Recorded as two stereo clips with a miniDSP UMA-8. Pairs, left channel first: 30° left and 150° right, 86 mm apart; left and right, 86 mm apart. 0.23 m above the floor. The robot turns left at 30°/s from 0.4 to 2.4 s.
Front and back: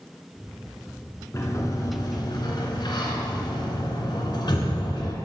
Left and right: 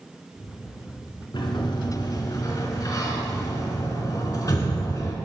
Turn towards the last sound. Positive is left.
turn(degrees=50)